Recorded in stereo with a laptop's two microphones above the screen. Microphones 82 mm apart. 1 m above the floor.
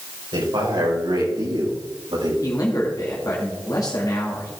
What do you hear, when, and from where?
0.3 s a man speaking: 85° right, 4.5 m; by 2.3 s 80° right, 5.5 m
2.4 s a man speaking: 45° left (ahead or behind), 1.9 m